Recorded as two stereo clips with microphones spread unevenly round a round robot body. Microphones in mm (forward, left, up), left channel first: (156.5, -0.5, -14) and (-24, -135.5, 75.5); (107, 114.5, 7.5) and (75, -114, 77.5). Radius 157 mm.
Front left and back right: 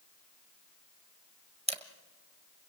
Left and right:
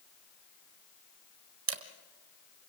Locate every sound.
1.7 s a camera shutter: 70° right, 1.7 m